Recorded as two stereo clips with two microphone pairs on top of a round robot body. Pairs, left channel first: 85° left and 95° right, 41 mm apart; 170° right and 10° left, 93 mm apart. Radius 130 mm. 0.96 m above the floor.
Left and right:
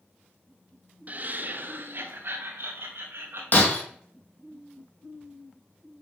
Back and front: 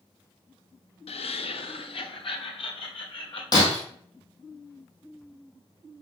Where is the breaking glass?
135° left, 1.5 m.